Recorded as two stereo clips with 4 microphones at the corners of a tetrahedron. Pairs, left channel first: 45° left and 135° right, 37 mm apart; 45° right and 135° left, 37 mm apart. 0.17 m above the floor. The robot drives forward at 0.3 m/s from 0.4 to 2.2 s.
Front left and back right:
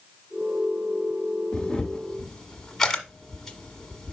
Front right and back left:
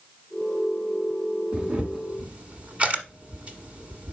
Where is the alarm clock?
I don't hear an alarm clock.